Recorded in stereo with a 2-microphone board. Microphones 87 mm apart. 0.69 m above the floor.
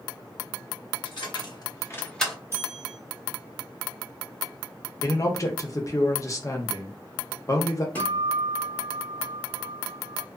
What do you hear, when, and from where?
1.1 s keys jangling: 70° left (ahead or behind), 1.1 m; by 2.4 s centre (ahead or behind), 0.7 m
2.5 s a bell: 30° right (ahead or behind), 1.2 m
5.0 s a man speaking: 40° left (ahead or behind), 0.7 m
8.0 s a guitar: 20° left (ahead or behind), 1.0 m